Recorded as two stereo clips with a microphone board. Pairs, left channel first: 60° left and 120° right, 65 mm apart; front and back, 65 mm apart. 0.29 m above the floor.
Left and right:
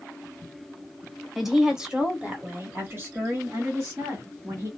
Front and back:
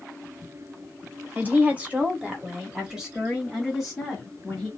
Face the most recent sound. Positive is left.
turn(degrees=-85)